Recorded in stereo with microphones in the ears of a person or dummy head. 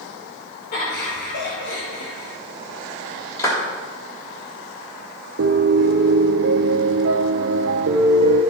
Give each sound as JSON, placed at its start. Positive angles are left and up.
{"t": 0.7, "sound": "laughter", "side_deg": 60, "distance_m": 3.0}
{"t": 3.4, "sound": "a clap", "side_deg": 20, "distance_m": 3.5}
{"t": 5.4, "sound": "a piano", "side_deg": -90, "distance_m": 1.0}